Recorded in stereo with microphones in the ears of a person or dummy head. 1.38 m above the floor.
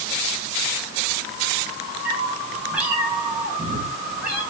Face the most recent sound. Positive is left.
turn(degrees=-10)  # may be behind; listen again after turning